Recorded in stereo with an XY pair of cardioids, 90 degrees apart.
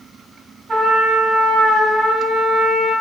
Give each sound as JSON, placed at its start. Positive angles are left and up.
{"t": 0.7, "sound": "a trumpet", "azimuth_deg": -70, "distance_m": 1.9}